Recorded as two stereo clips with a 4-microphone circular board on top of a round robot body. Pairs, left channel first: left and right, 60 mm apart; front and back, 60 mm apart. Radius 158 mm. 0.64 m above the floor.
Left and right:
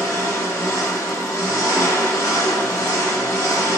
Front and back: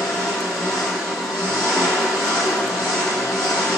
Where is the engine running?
85° left, 1.9 m.